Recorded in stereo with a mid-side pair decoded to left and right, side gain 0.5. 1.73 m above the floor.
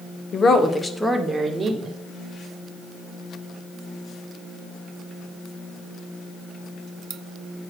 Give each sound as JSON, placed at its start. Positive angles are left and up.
{"t": 0.3, "sound": "a woman speaking", "azimuth_deg": 45, "distance_m": 1.4}